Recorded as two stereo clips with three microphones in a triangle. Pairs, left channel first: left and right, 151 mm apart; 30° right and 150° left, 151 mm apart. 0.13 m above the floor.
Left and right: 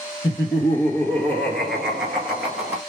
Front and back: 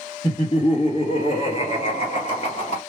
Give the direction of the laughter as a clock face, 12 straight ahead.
11 o'clock.